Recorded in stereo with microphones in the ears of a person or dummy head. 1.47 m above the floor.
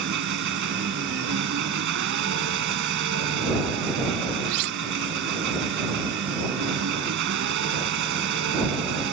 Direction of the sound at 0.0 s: 60° right (ahead or behind).